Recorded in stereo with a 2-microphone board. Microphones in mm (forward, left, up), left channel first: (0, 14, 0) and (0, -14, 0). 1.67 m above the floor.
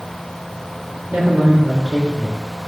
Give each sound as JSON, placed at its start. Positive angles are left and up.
{"t": 1.1, "sound": "a man speaking", "side_deg": -65, "distance_m": 3.0}